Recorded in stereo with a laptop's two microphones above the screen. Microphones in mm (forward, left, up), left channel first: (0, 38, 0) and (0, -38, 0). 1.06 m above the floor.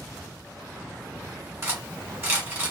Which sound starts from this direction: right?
Cutlery clinking, at 1.6 s.